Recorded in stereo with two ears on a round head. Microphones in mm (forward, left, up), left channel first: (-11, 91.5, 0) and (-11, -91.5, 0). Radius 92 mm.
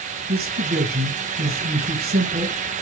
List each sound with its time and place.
0.3 s a man speaking: 50° right (ahead or behind), 1.8 m